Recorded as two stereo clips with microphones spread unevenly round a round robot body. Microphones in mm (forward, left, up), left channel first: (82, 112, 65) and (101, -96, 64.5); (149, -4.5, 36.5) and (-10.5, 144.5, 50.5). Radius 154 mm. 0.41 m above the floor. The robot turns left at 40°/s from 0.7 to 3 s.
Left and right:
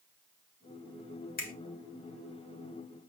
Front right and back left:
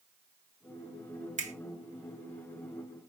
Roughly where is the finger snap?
Left.